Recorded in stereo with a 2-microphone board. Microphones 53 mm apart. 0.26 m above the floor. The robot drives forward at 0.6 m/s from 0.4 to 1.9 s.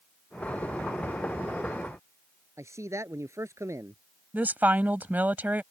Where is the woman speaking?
30° right (ahead or behind).